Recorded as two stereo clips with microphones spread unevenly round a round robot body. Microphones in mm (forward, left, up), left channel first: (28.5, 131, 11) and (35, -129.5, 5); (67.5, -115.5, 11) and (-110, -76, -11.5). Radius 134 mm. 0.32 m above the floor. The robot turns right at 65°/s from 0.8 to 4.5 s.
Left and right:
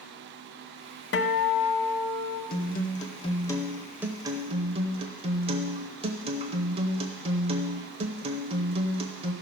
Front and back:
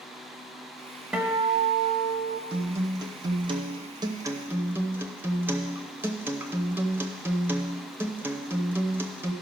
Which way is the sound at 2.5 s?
95° left.